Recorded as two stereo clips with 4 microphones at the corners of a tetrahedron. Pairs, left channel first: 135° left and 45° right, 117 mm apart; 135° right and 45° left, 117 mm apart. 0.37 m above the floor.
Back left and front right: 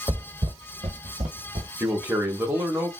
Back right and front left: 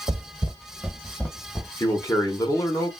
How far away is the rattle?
No rattle in this recording.